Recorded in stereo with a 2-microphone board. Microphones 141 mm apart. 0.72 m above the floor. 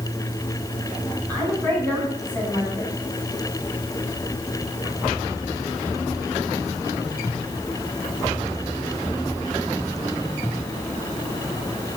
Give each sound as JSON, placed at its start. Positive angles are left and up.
{"t": 1.3, "sound": "a woman speaking", "side_deg": 10, "distance_m": 6.5}